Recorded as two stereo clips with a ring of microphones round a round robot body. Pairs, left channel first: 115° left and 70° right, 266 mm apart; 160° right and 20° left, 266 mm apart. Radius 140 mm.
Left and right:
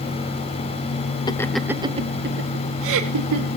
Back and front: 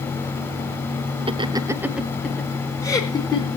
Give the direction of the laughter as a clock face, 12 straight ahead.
10 o'clock.